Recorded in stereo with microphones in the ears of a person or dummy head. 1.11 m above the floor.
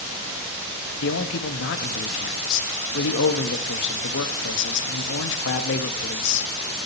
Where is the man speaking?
65° left (ahead or behind), 1.4 m.